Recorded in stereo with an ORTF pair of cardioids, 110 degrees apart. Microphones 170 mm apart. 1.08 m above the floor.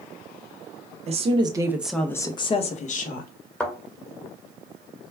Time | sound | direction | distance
1.1 | a woman speaking | 40° right | 0.8 m
3.6 | a thud | 5° left | 1.2 m